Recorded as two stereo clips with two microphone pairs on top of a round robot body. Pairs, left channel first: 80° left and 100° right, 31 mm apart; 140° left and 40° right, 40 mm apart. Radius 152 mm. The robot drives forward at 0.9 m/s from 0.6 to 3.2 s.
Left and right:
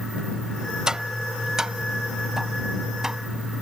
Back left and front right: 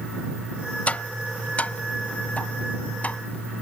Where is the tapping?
170° right; by 3.6 s 175° right.